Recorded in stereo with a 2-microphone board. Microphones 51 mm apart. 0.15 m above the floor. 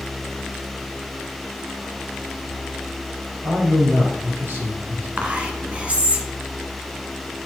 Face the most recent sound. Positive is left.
turn(degrees=-25)  # may be behind; listen again after turning